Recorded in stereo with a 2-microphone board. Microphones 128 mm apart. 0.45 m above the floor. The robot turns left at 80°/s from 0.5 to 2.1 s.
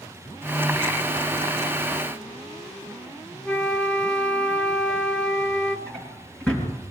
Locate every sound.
3.5 s a flute: 10° left (ahead or behind), 0.8 m
5.9 s a drawer: 10° left (ahead or behind), 4 m